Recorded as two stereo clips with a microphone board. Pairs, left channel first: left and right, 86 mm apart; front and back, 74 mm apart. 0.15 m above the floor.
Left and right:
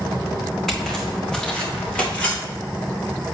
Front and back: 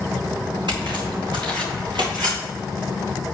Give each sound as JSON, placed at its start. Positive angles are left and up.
{"t": 0.7, "sound": "footsteps", "azimuth_deg": 175, "distance_m": 3.5}